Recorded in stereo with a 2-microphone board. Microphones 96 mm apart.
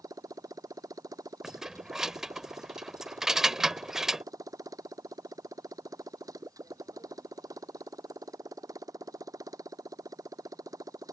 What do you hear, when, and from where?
0.0 s a motorcycle: 40° right (ahead or behind)
1.4 s keys jangling: 5° right (ahead or behind)